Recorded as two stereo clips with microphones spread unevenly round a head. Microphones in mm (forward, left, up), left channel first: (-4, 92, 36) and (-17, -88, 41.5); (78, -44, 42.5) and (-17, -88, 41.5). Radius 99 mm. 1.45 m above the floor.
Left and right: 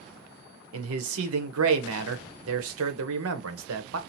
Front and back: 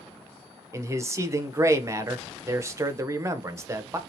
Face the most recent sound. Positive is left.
turn(degrees=-90)